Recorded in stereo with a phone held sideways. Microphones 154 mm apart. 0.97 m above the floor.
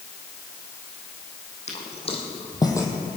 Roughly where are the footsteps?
Left.